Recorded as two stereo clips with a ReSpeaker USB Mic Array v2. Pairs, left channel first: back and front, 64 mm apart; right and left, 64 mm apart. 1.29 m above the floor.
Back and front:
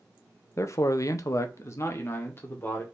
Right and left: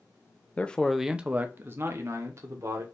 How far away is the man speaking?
About 0.5 m.